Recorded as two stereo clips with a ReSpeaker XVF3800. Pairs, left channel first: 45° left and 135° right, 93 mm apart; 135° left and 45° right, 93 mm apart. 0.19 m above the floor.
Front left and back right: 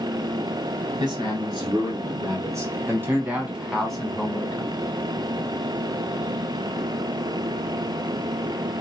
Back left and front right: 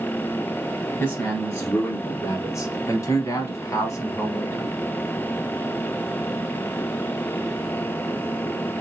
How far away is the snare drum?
No snare drum in this recording.